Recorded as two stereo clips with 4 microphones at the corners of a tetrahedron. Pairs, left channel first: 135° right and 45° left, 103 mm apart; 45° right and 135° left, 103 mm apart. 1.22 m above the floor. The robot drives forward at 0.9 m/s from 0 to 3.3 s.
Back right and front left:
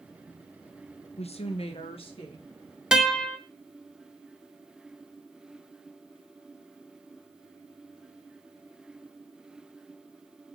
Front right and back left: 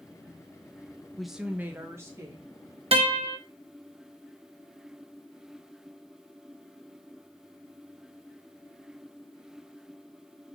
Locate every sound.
1.2 s a woman speaking: 130° right, 0.5 m; by 2.8 s 170° right, 1.9 m
2.9 s a guitar: 125° left, 0.7 m; by 3.4 s 145° left, 0.9 m